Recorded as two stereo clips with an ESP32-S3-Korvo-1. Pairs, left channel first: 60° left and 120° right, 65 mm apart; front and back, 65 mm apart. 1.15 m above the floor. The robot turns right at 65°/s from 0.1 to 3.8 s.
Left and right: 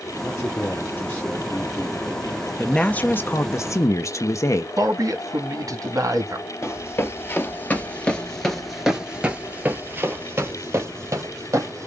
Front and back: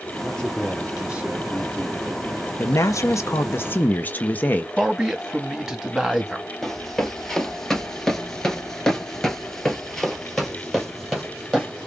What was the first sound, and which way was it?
A man speaking, 60° left.